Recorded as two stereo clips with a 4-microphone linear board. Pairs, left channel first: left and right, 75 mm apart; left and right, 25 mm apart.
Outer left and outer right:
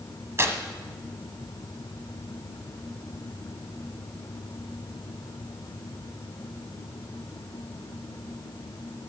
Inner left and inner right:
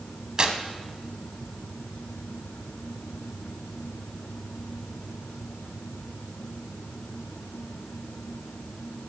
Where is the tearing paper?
35° right (ahead or behind), 1.2 m.